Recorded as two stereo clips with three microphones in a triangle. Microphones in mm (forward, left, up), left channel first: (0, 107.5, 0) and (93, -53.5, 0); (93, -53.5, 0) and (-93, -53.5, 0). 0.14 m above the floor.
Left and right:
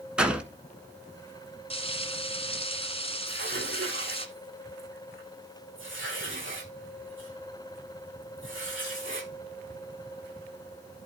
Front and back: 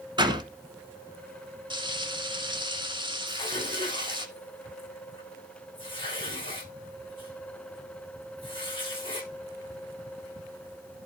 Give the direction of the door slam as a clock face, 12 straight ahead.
5 o'clock.